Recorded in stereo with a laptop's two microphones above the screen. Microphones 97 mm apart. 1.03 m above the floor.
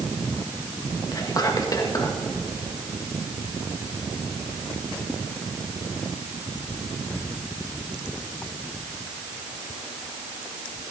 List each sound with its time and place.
1.1 s whispering: 40° left (ahead or behind), 1.6 m